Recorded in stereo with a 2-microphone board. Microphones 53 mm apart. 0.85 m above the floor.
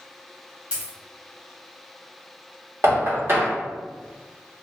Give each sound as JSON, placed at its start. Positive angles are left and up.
{"t": 0.7, "sound": "a dropped coin", "side_deg": -20, "distance_m": 1.0}
{"t": 2.8, "sound": "knocking", "side_deg": -45, "distance_m": 1.5}